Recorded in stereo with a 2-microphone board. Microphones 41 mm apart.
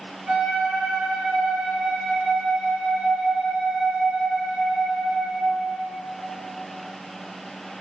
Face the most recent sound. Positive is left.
turn(degrees=-30)  # may be behind; listen again after turning